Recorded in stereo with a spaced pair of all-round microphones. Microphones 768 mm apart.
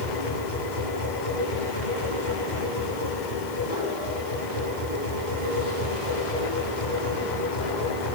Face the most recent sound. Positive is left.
turn(degrees=70)  # may be behind; listen again after turning